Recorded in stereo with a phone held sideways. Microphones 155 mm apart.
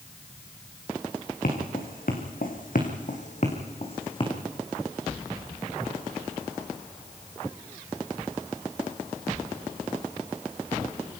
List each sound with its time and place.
1.4 s footsteps: 75° left (ahead or behind), 4.5 m; by 4.3 s 35° left (ahead or behind), 4 m